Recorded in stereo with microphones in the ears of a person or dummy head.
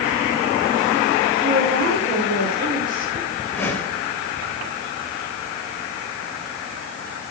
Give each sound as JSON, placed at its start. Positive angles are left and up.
{"t": 1.4, "sound": "a woman speaking", "side_deg": -50, "distance_m": 7.0}
{"t": 3.5, "sound": "a whoosh", "side_deg": 15, "distance_m": 4.0}